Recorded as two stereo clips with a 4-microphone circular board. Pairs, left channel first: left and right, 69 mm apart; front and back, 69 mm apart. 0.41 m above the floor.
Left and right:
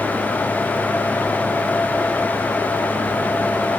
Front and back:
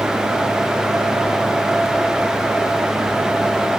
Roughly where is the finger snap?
No finger snap in this recording.